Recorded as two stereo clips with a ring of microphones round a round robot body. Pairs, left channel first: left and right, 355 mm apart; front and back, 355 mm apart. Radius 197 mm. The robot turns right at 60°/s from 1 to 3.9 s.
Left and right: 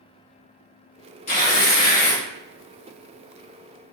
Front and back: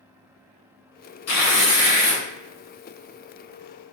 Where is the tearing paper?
25° left, 1.3 m; by 2.2 s 80° left, 1.3 m.